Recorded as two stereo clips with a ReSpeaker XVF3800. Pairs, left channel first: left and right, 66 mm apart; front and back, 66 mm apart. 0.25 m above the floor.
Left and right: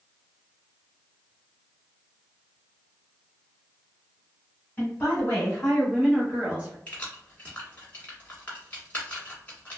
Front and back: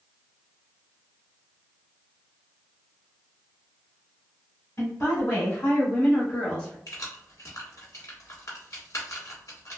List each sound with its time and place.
4.8 s a woman speaking: 35° left, 1.9 m; by 6.8 s 75° right, 1.3 m
6.9 s keys jangling: 25° left, 1.4 m